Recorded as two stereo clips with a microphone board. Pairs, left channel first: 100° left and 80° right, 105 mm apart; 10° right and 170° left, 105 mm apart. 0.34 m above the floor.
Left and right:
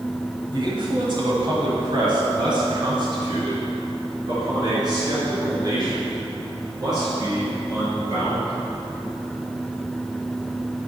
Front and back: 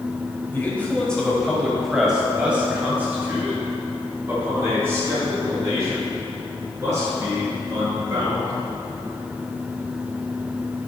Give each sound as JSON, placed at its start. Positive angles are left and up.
{"t": 0.5, "sound": "a man speaking", "azimuth_deg": -75, "distance_m": 1.3}